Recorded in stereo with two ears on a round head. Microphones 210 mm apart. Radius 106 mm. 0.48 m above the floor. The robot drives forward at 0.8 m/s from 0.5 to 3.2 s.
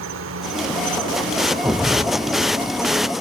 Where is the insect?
55° right (ahead or behind); by 3.2 s 15° right (ahead or behind).